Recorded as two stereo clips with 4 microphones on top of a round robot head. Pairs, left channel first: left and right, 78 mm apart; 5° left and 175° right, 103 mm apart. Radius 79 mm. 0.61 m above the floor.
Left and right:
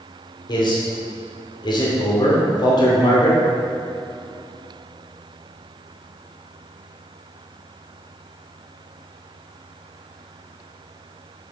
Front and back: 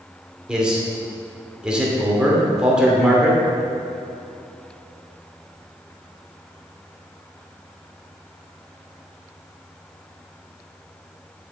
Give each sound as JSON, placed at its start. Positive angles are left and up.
{"t": 0.5, "sound": "a man speaking", "azimuth_deg": 100, "distance_m": 2.5}